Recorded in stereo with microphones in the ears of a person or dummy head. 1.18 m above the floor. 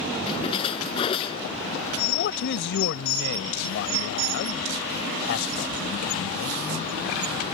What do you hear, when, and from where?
0.3 s a splash: 35° left (ahead or behind)
2.0 s a man speaking: 60° left (ahead or behind)